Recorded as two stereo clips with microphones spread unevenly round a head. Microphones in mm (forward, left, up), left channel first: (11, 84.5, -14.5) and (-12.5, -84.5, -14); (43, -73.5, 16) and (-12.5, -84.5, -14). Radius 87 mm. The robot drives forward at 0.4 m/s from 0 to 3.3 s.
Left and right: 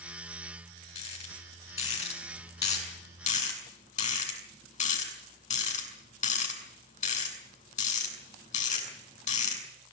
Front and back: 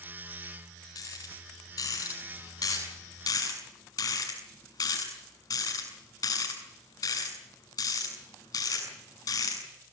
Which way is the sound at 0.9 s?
25° left.